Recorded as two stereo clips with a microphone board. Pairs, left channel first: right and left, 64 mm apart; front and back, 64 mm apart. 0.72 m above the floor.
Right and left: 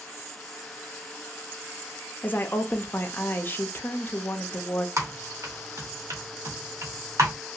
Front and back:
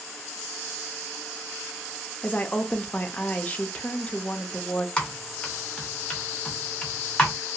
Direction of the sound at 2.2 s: 55° right.